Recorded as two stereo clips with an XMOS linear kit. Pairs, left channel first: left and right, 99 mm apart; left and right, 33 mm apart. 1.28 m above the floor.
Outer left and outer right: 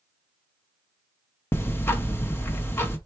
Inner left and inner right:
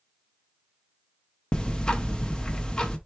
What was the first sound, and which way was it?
Ticking, 25° left (ahead or behind).